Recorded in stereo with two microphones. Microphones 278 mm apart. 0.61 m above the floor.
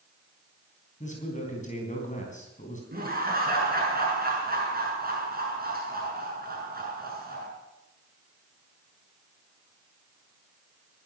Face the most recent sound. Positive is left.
turn(degrees=-35)  # may be behind; listen again after turning